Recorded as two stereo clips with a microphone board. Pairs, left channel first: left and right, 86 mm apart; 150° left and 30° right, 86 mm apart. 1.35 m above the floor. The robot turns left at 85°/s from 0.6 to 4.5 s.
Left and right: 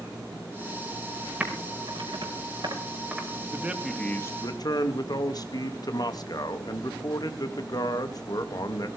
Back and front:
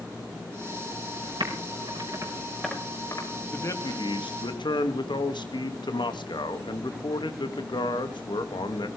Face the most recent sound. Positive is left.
turn(degrees=130)